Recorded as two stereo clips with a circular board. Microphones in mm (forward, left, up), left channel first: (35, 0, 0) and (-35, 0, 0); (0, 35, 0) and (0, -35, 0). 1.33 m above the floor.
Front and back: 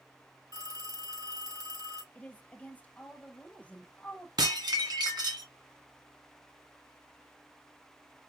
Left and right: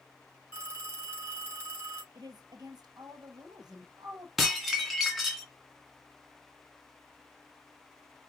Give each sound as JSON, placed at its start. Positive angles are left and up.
{"t": 0.5, "sound": "a phone ringing", "azimuth_deg": -145, "distance_m": 4.0}
{"t": 2.1, "sound": "a woman speaking", "azimuth_deg": -65, "distance_m": 1.1}
{"t": 4.4, "sound": "dishes clattering", "azimuth_deg": -175, "distance_m": 1.8}